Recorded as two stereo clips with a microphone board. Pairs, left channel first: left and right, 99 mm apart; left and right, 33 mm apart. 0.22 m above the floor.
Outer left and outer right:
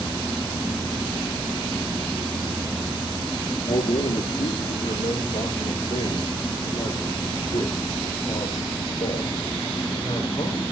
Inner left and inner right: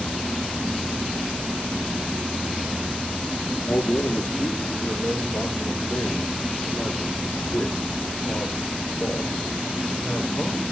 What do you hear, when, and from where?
3.7 s a man speaking: 70° left (ahead or behind), 5.5 m; by 10.6 s 40° left (ahead or behind), 10 m